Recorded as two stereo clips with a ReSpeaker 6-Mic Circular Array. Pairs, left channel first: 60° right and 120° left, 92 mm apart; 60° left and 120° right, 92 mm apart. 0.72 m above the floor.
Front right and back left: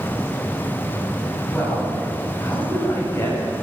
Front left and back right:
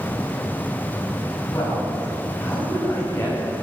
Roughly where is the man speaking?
Ahead.